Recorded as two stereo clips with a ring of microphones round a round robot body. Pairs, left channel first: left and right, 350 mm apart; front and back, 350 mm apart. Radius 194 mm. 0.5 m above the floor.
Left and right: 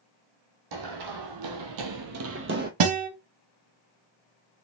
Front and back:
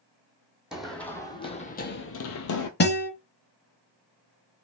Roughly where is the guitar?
Ahead right.